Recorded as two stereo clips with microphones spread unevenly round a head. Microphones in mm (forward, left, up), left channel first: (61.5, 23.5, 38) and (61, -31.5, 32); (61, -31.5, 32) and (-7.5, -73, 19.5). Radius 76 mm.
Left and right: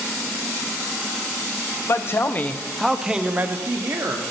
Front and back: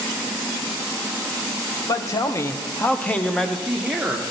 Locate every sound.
1.9 s a man speaking: 75° left, 0.7 m; by 4.2 s 75° right, 0.9 m